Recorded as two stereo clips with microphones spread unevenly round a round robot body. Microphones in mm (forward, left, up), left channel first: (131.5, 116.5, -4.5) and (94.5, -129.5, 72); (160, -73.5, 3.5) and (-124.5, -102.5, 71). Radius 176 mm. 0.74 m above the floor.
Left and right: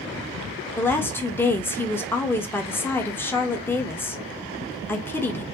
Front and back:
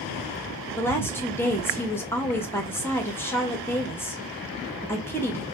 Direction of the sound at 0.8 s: 50° left.